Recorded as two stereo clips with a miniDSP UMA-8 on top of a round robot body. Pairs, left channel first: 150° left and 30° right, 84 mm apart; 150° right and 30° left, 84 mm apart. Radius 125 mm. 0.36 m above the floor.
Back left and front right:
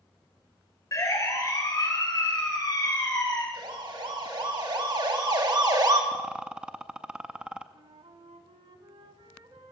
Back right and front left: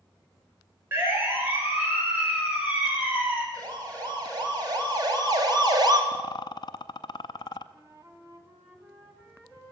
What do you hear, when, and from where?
0.9 s a siren: 95° left, 5.5 m; by 3.4 s 105° left, 9 m
3.5 s a siren: 10° right, 6 m; by 6.0 s 5° left, 3 m
6.1 s a rattle: 110° right, 0.6 m
7.7 s a flute: 35° right, 2.5 m